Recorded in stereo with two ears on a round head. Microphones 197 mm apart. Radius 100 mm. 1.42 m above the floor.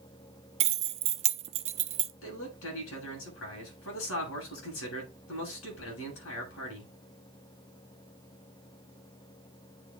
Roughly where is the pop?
No pop in this recording.